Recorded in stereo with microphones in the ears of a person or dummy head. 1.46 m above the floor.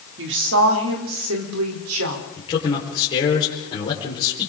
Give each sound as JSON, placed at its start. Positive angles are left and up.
{"t": 0.2, "sound": "a woman speaking", "side_deg": -65, "distance_m": 3.0}
{"t": 2.4, "sound": "a man speaking", "side_deg": 25, "distance_m": 4.5}